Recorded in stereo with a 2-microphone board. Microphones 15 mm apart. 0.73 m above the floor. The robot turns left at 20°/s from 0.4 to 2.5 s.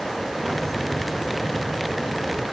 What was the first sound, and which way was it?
Only background noise.